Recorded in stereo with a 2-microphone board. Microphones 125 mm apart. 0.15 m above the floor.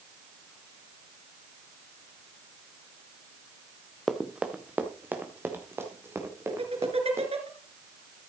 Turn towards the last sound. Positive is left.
turn(degrees=-55)  # may be behind; listen again after turning